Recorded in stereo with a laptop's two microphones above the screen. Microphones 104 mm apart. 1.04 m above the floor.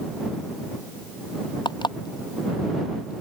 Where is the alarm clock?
50° left (ahead or behind).